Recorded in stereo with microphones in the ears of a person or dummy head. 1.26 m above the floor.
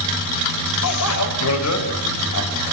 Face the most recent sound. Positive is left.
turn(degrees=80)